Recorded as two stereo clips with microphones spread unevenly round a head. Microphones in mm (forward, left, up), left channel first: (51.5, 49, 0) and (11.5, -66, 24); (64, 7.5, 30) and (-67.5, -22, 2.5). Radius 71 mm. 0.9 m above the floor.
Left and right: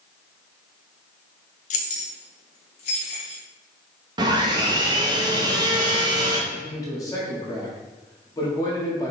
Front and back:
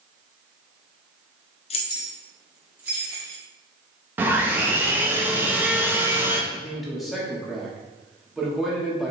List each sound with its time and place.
1.7 s keys jangling: 60° left, 0.6 m; by 3.4 s 120° left, 1.7 m
4.2 s sawing: 145° right, 0.7 m
6.5 s a man speaking: 115° left, 1.1 m